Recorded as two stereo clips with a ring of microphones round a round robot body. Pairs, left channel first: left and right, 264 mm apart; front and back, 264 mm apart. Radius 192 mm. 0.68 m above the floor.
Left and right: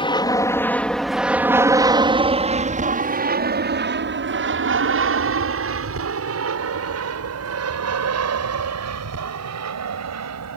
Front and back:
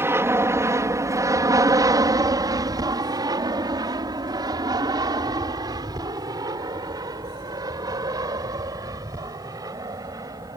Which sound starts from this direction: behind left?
An aircraft, at 0.0 s.